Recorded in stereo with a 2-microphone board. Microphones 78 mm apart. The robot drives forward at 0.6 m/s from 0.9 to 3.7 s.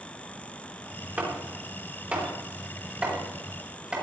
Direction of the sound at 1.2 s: 25° right (ahead or behind).